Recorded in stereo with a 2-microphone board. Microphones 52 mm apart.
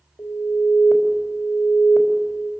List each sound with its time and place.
0.2 s an alarm: 70° left (ahead or behind), 3.5 m